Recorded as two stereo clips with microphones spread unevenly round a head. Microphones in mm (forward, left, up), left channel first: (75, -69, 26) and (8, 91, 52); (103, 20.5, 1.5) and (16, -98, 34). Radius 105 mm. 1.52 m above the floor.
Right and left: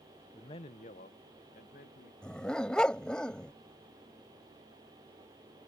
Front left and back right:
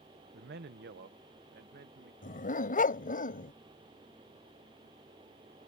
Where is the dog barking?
20° left.